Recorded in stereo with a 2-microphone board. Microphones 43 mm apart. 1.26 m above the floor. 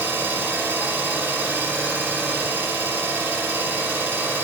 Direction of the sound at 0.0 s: 65° right (ahead or behind).